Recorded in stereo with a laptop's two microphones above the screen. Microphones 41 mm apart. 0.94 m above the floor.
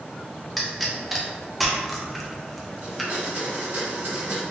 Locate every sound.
0.6 s a pop: 5° right (ahead or behind), 0.5 m
2.8 s a blender: 65° right (ahead or behind), 1.9 m